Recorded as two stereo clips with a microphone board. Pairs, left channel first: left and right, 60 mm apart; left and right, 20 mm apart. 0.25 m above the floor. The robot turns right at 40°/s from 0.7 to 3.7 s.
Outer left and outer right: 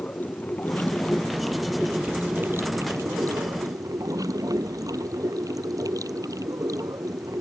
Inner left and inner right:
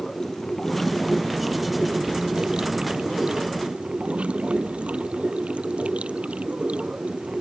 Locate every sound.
0.0 s running water: 150° left; by 7.4 s 90° right